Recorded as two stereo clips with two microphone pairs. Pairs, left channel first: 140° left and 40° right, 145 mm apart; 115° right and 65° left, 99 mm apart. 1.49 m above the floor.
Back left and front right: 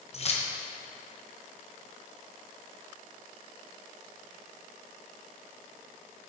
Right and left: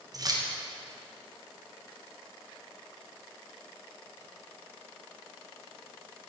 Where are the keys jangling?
105° left, 0.8 m.